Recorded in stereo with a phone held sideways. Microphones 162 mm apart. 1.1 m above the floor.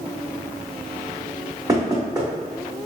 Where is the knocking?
25° right (ahead or behind), 1.4 m.